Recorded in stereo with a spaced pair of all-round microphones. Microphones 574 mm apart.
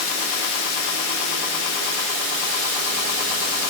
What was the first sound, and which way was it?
Only background noise.